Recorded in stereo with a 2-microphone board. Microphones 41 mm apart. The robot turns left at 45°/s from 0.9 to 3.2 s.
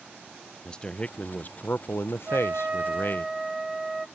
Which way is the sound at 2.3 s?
130° right.